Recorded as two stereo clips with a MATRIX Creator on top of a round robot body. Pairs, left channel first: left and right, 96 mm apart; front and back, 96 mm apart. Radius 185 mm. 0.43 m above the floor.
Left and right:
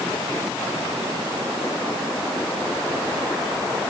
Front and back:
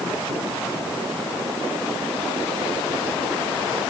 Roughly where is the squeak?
No squeak in this recording.